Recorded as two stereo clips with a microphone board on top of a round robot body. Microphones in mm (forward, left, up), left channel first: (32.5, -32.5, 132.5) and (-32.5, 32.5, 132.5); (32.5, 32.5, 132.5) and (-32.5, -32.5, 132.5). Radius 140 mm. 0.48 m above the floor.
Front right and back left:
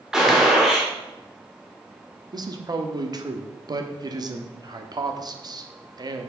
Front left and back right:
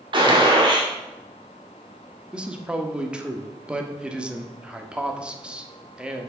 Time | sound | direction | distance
0.1 | a gunshot | 140° right | 2 m
2.3 | a man speaking | 150° left | 1.3 m